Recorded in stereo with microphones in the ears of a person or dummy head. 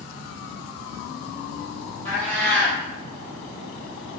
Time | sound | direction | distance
2.0 | a cat meowing | 15° left (ahead or behind) | 1.7 m